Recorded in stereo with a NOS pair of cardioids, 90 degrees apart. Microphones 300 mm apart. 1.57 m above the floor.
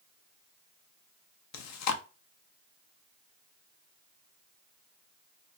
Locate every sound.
1.5 s chewing: 65° left, 0.6 m